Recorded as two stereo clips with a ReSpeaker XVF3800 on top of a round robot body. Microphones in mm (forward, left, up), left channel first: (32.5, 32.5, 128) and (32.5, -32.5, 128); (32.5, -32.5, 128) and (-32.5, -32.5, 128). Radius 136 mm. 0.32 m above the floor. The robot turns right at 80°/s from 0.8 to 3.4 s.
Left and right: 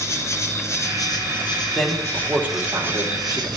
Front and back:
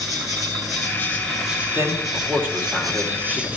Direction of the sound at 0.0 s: 45° left.